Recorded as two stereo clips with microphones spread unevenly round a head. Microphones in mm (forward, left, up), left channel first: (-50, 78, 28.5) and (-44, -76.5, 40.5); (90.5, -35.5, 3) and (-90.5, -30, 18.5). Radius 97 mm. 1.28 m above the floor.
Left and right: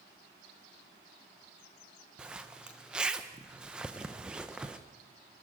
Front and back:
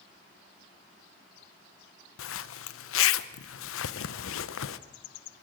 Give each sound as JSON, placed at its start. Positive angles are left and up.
{"t": 2.2, "sound": "a zipper", "azimuth_deg": -5, "distance_m": 0.7}